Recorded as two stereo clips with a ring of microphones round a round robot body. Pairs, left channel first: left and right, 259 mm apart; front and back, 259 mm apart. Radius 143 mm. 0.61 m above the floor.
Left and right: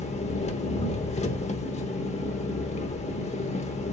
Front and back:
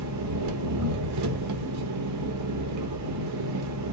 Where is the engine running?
155° left, 1.1 m.